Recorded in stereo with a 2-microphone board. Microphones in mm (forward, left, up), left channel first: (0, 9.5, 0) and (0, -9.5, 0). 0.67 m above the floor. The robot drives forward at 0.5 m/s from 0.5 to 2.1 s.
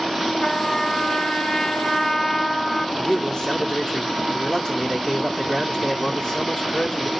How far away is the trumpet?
About 0.8 m.